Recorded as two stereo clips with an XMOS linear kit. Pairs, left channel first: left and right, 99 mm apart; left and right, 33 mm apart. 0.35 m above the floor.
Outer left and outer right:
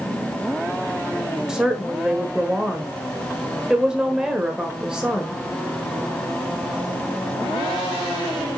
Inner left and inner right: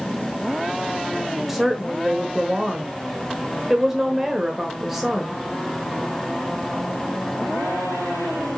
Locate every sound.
1.5 s a woman speaking: 5° right (ahead or behind), 1.2 m